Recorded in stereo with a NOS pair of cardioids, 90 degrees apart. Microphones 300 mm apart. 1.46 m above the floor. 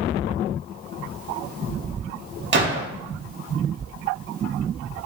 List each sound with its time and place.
2.5 s a gunshot: 35° right, 2 m